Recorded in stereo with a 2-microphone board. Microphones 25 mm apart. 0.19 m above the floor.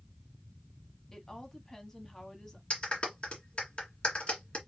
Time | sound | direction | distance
1.1 | a woman speaking | 25° left (ahead or behind) | 1.3 m
2.7 | a clap | 50° left (ahead or behind) | 1.9 m